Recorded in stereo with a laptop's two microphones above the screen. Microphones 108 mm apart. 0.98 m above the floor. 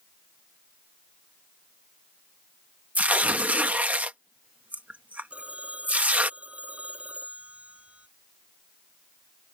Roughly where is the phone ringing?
Centre.